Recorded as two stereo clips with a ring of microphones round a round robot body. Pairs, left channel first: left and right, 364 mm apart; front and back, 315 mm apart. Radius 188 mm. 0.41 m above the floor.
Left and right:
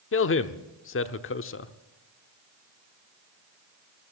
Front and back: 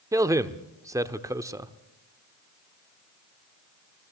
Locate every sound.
0.1 s a man speaking: 105° left, 0.9 m